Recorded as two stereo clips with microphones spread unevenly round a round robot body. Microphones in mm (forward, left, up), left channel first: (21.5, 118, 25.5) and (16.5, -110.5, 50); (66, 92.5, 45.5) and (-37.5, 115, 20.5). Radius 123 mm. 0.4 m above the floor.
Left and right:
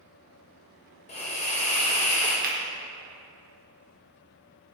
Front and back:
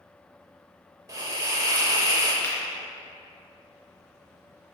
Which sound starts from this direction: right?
A finger snap, at 2.4 s.